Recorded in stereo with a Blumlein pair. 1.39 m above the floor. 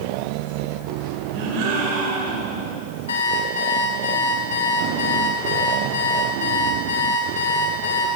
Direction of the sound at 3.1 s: 65° left.